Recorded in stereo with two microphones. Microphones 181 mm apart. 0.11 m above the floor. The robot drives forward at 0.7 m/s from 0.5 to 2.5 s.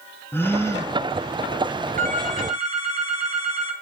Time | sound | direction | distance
0.3 | a gasp | 10° left (ahead or behind) | 0.9 m
2.0 | a phone ringing | 45° right (ahead or behind) | 1.1 m